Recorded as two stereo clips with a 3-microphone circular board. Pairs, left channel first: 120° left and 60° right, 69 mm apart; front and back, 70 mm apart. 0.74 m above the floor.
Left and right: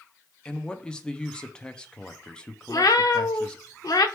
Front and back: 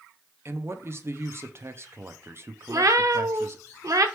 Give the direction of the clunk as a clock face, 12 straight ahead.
No clunk in this recording.